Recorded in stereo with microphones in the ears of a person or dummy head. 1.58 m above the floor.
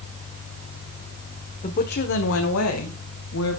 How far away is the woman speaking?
About 1.1 m.